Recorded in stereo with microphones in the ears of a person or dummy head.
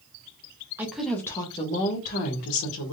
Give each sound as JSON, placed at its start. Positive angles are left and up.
{"t": 0.8, "sound": "a woman speaking", "side_deg": -10, "distance_m": 0.8}